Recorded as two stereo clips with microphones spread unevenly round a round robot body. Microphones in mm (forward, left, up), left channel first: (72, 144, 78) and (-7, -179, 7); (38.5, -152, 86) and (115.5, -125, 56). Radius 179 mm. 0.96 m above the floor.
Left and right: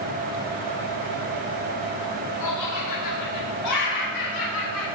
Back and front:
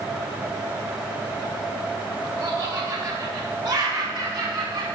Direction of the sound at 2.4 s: 65° left.